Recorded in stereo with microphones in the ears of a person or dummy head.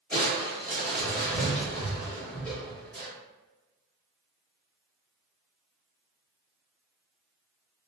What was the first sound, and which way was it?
Crushing, 10° left (ahead or behind).